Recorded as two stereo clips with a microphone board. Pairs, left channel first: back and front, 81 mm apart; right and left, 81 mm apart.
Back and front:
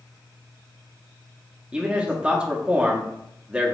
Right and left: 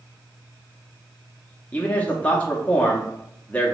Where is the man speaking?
50° right, 0.5 m.